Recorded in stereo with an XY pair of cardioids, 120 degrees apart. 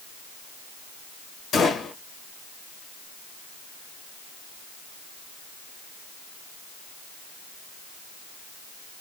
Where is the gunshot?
65° left, 1.2 m.